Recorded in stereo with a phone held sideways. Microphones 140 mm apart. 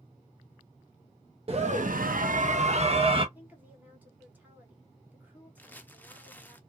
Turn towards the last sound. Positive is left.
turn(degrees=15)  # may be behind; listen again after turning